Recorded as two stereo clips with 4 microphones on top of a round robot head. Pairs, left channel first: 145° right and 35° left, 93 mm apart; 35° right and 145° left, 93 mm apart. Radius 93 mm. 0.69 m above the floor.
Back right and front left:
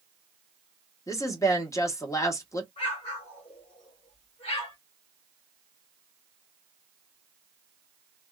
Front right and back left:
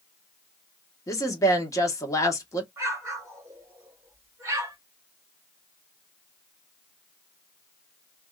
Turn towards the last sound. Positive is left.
turn(degrees=-155)